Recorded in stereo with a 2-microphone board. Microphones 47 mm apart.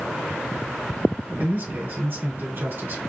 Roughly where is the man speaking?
Right.